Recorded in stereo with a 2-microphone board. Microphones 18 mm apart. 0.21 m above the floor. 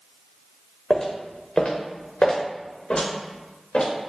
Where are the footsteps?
35° left (ahead or behind), 0.8 m; by 3.9 s 75° left (ahead or behind), 2.0 m.